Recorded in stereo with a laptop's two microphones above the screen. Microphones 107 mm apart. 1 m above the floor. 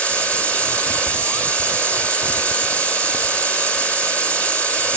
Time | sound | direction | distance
0.0 | a machine running | 10° left (ahead or behind) | 2 m